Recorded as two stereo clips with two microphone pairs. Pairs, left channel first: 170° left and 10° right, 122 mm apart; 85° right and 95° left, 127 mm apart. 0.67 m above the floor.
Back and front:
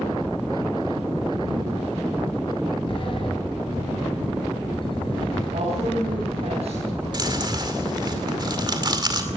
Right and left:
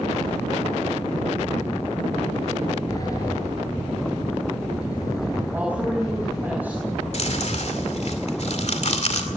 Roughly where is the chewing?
Ahead right.